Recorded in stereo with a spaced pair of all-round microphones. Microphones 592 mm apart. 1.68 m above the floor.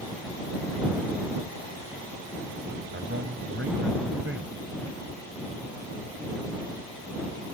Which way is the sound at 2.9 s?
20° right (ahead or behind).